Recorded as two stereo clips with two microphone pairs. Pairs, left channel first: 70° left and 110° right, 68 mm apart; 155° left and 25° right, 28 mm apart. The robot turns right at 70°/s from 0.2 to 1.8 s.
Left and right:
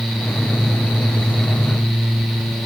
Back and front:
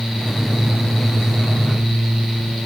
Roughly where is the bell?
I don't hear a bell.